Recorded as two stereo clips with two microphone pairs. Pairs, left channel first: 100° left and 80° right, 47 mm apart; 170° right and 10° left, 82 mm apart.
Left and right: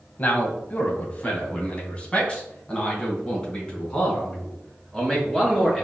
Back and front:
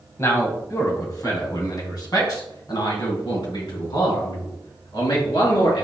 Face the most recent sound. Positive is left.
turn(degrees=175)